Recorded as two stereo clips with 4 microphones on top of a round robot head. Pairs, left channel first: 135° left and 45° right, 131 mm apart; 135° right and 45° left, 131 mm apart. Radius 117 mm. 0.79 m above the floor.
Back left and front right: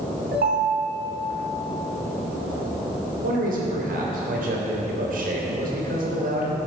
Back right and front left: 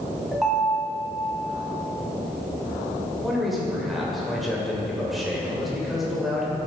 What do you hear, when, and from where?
0.3 s a ringtone: 45° right, 2.5 m
3.2 s a man speaking: 45° right, 3 m